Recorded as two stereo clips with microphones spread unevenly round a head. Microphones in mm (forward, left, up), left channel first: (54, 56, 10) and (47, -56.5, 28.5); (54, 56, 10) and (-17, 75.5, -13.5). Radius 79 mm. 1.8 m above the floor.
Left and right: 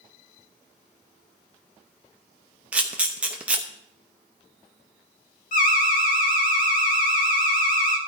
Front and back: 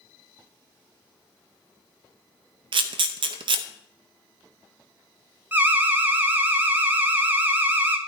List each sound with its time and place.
2.7 s a camera shutter: 170° right, 0.7 m
5.5 s an alarm: 95° left, 1.8 m